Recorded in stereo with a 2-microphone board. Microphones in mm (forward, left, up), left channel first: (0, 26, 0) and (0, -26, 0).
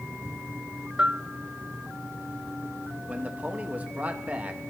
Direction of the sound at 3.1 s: 30° right (ahead or behind).